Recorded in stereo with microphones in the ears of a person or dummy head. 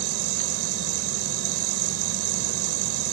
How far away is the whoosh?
No whoosh in this recording.